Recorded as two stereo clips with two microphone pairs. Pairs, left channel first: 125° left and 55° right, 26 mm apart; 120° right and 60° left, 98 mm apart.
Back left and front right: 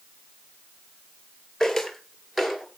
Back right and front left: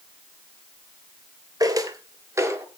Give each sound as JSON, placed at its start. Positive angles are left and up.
{"t": 1.6, "sound": "footsteps", "azimuth_deg": 40, "distance_m": 1.8}